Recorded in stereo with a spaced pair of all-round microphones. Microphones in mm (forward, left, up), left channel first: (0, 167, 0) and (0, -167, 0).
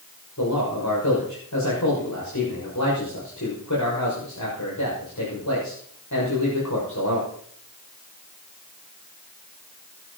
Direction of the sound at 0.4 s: 60° left (ahead or behind).